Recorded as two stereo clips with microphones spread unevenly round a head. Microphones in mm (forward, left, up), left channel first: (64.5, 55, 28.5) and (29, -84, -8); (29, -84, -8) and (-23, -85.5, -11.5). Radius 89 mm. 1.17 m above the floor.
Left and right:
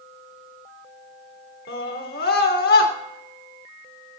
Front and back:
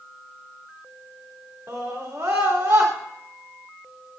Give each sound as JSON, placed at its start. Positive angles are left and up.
{"t": 1.7, "sound": "a scream", "azimuth_deg": 115, "distance_m": 3.0}